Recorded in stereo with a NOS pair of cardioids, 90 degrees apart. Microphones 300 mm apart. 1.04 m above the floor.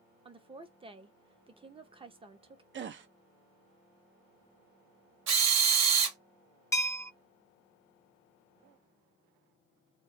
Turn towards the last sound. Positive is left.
turn(degrees=10)